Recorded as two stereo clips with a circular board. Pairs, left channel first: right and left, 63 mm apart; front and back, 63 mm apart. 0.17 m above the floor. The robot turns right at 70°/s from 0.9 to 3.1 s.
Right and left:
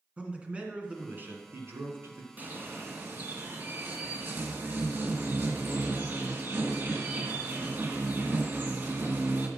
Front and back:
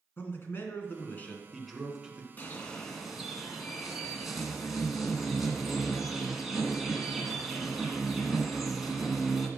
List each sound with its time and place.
0.2 s a man speaking: 30° left, 2 m; by 2.3 s 125° left, 2 m
2.4 s a bird: 45° left, 1.9 m; by 9.5 s 95° left, 1.9 m